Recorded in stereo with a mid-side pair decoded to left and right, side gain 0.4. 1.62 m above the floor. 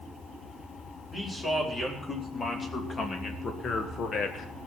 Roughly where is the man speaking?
Ahead left.